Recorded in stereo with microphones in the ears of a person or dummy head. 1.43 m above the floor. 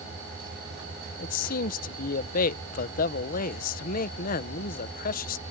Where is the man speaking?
45° left (ahead or behind).